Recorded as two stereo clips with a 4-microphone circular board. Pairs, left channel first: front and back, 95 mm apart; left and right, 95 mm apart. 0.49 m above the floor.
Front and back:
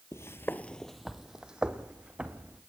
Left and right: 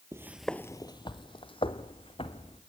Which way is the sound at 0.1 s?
50° right.